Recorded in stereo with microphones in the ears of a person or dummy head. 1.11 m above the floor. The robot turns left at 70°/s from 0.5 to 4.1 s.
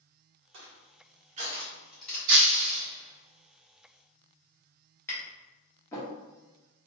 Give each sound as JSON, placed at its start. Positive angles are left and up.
{"t": 0.5, "sound": "crushing", "side_deg": -55, "distance_m": 1.3}
{"t": 2.3, "sound": "breaking glass", "azimuth_deg": -70, "distance_m": 1.0}
{"t": 5.1, "sound": "tapping", "side_deg": 20, "distance_m": 1.2}